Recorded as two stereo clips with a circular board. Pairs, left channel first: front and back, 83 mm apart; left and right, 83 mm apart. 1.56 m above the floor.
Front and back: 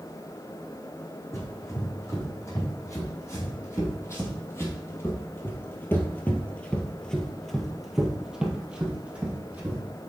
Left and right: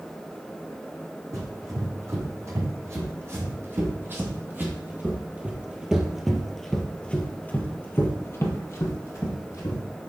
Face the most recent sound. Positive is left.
turn(degrees=115)